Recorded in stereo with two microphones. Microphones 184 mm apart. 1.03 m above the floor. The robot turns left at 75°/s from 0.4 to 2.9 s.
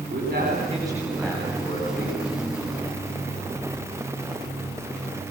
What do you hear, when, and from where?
0.1 s a man speaking: 125° right, 9.5 m; by 2.2 s 100° left, 9.5 m